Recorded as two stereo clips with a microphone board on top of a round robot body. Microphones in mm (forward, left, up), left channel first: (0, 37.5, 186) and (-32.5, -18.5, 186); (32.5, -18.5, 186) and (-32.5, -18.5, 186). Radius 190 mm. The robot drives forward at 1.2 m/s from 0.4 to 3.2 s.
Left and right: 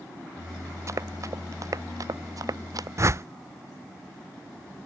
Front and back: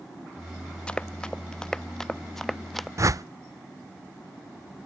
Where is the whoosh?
155° right; by 3.2 s 160° right.